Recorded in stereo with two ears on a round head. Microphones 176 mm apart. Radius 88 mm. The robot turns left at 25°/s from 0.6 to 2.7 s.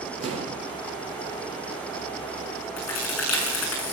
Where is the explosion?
30° right (ahead or behind), 5 m.